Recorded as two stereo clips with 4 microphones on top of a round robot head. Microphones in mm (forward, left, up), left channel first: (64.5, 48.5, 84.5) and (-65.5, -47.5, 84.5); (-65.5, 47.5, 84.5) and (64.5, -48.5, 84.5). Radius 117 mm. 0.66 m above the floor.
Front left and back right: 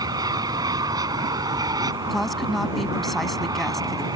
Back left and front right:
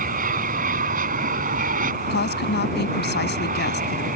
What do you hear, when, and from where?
0.0 s an aircraft: 75° right
2.1 s a woman speaking: 125° left